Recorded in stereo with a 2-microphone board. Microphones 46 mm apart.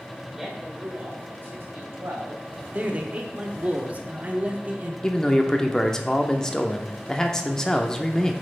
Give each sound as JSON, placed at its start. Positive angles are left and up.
{"t": 0.4, "sound": "a man speaking", "side_deg": -10, "distance_m": 1.8}
{"t": 2.7, "sound": "a man speaking", "side_deg": -35, "distance_m": 0.9}
{"t": 5.0, "sound": "a man speaking", "side_deg": 15, "distance_m": 0.7}